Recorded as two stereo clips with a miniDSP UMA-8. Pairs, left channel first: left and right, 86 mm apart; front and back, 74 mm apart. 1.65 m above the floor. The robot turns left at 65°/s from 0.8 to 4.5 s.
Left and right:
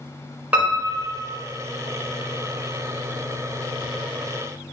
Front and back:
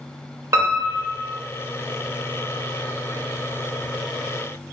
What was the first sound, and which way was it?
A piano, 155° right.